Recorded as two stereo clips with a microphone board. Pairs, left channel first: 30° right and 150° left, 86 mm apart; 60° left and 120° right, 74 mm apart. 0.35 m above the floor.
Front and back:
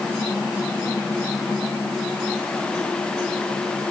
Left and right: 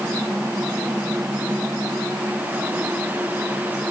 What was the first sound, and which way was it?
Only background noise.